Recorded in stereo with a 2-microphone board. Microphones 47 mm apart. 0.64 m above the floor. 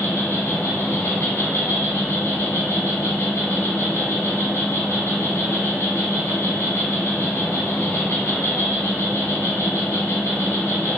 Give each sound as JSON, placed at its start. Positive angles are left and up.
{"t": 0.0, "sound": "an insect", "side_deg": 70, "distance_m": 0.9}